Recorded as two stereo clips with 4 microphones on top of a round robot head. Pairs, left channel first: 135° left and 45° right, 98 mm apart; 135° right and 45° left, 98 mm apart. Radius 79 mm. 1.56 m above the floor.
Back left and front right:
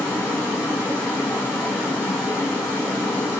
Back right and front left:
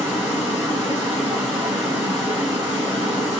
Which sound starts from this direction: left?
Running water, at 0.0 s.